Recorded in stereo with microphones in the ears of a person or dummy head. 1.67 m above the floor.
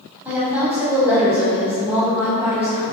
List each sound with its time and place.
0.2 s a woman speaking: 10° right (ahead or behind), 1.0 m